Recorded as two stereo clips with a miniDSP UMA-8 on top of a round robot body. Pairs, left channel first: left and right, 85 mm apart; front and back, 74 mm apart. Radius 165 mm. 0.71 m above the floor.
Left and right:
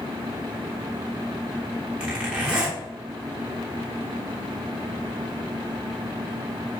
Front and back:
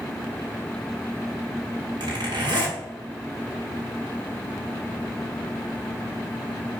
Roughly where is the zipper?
Behind.